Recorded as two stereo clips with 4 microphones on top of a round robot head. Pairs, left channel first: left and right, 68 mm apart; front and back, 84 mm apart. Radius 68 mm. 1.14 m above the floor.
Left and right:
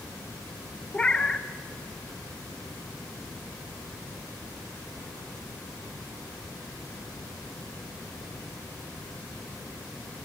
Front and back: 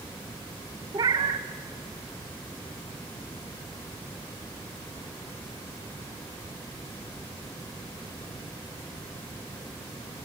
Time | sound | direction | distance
0.9 | a cat meowing | 160° left | 0.8 m